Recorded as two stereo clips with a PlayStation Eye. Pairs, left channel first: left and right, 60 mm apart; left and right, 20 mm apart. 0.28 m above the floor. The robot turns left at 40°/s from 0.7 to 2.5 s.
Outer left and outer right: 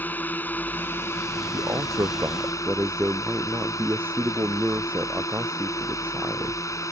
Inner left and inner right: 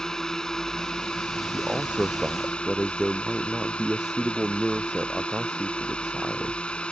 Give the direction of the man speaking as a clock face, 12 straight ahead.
4 o'clock.